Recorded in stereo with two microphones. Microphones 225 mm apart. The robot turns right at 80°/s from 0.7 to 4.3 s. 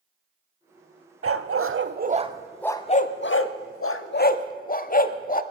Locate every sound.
1.2 s a dog barking: 70° right (ahead or behind), 0.6 m; by 5.4 s 40° left (ahead or behind), 0.6 m